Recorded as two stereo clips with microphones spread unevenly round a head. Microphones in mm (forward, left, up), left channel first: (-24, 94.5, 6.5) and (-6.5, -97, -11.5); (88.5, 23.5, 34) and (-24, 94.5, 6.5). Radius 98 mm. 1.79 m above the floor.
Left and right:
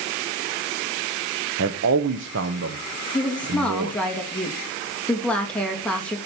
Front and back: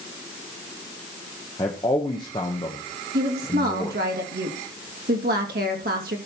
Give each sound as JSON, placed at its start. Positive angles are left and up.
{"t": 1.6, "sound": "a man speaking", "azimuth_deg": -85, "distance_m": 0.8}
{"t": 3.1, "sound": "a woman speaking", "azimuth_deg": 180, "distance_m": 2.5}